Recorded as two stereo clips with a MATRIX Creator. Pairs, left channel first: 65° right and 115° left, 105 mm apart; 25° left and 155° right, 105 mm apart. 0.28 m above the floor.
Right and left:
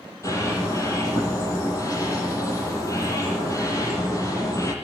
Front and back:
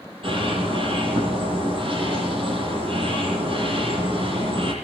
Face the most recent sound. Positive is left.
turn(degrees=-125)